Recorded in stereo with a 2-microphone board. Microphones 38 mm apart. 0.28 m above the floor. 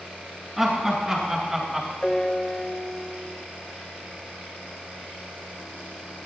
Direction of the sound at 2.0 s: 15° left (ahead or behind).